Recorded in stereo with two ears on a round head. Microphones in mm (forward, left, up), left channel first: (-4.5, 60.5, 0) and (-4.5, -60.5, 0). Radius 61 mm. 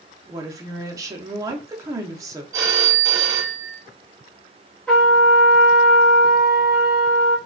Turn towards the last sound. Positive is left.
turn(degrees=5)  # may be behind; listen again after turning